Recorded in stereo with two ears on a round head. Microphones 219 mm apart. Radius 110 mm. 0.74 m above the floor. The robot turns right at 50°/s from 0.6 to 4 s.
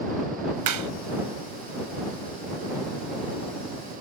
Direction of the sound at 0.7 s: 80° right.